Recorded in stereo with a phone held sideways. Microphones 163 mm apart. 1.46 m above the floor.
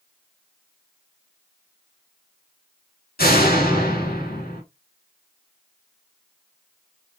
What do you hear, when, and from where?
3.2 s a door slam: 65° left (ahead or behind), 2.5 m